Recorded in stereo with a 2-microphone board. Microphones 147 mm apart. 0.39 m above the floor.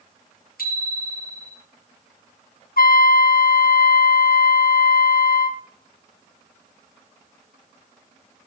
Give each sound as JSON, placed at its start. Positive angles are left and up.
{"t": 0.6, "sound": "a bicycle bell", "side_deg": 80, "distance_m": 6.5}
{"t": 2.8, "sound": "a trumpet", "side_deg": 80, "distance_m": 0.8}